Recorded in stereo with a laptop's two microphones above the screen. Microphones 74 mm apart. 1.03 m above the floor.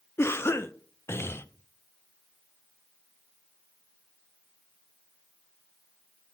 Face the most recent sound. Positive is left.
turn(degrees=35)  # may be behind; listen again after turning